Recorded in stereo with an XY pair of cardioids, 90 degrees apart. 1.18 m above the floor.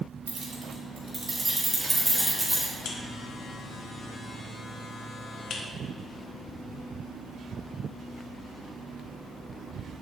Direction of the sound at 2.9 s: 65° left.